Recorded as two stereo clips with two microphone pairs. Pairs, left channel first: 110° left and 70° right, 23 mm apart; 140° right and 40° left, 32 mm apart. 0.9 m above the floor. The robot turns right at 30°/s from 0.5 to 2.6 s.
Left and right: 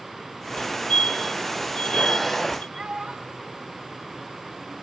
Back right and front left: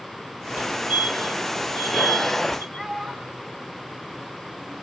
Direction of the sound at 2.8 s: 60° right.